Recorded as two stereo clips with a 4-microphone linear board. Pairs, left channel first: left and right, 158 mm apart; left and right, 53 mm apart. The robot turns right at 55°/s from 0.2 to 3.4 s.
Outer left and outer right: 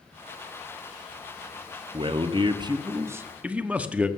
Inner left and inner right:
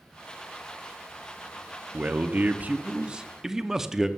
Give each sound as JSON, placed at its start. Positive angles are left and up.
{"t": 1.9, "sound": "a man speaking", "azimuth_deg": -95, "distance_m": 0.7}